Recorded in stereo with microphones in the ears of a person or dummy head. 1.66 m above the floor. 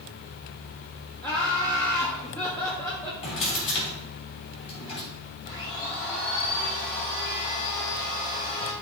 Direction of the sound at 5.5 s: 25° left (ahead or behind).